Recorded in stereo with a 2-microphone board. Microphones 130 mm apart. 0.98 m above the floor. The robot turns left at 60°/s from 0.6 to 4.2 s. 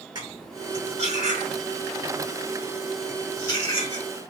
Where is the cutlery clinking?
35° right (ahead or behind), 1.7 m; by 4.0 s 60° left (ahead or behind), 1.7 m.